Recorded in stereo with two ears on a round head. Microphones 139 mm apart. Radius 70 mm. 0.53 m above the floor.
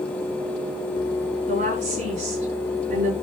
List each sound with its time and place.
1.5 s a woman speaking: 45° right (ahead or behind), 5.5 m